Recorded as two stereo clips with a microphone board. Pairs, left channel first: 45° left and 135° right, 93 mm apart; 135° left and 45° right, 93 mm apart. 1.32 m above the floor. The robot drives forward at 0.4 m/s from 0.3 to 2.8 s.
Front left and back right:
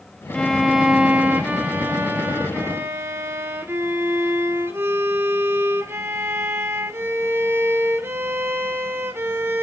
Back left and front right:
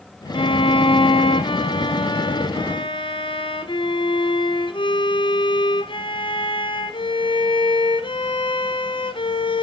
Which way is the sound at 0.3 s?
130° left.